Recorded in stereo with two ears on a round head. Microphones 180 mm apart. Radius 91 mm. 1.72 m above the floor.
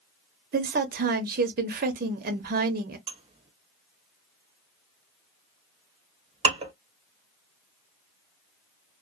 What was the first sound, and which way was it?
A woman speaking, 45° right (ahead or behind).